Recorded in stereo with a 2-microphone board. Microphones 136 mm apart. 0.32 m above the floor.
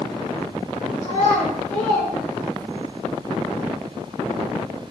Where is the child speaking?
70° left (ahead or behind), 1.8 m; by 2.9 s 35° left (ahead or behind), 1.0 m.